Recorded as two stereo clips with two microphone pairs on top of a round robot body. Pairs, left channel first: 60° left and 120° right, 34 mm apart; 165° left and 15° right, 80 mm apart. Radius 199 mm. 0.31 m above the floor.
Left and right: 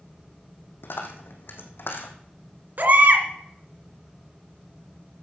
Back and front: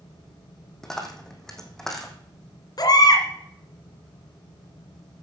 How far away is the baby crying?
About 2.5 m.